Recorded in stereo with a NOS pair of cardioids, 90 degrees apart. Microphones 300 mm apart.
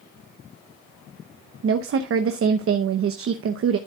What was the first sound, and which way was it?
A woman speaking, 50° right.